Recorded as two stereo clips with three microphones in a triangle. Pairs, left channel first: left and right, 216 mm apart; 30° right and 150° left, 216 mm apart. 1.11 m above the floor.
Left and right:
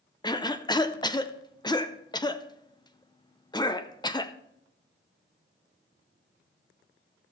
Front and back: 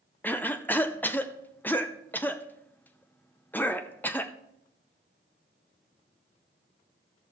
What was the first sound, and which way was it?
A cough, 40° left.